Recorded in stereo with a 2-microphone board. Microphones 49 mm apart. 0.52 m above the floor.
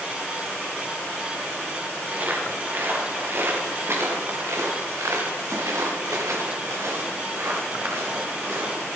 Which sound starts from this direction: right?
Footsteps, at 2.1 s.